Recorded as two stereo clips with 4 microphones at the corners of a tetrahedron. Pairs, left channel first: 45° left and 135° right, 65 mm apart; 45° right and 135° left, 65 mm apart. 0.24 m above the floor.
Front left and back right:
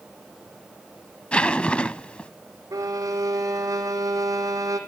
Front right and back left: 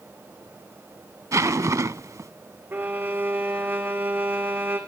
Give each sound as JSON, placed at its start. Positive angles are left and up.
{"t": 1.3, "sound": "a zipper", "azimuth_deg": 115, "distance_m": 0.5}
{"t": 2.7, "sound": "a violin", "azimuth_deg": -165, "distance_m": 2.0}